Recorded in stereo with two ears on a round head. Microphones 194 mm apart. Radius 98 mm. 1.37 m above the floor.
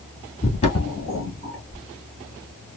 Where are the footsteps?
30° left (ahead or behind), 1.6 m; by 1.8 s 5° left (ahead or behind), 1.3 m.